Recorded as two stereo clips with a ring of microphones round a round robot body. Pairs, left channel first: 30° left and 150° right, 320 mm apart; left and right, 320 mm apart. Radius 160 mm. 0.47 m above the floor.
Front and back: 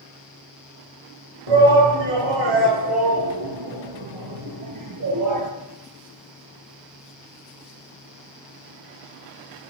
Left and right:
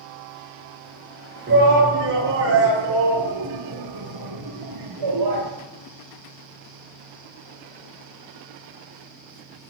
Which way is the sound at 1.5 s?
150° right.